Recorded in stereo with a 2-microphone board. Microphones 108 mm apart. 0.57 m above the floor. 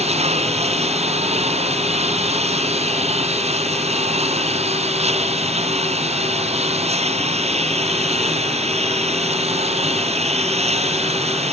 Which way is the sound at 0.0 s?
80° right.